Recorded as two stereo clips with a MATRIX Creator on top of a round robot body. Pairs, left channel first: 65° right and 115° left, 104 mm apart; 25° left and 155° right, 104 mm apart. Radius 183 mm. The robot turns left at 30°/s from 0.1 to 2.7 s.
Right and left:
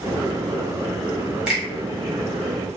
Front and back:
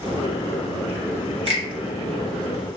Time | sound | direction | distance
1.5 | a finger snap | 165° right | 1.6 m